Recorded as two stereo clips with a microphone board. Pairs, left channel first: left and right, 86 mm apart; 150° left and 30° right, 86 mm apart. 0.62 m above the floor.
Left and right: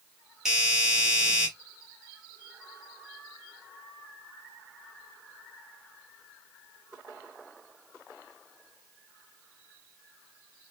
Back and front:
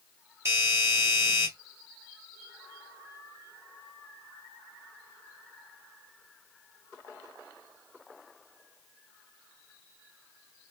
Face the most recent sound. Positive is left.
turn(degrees=-5)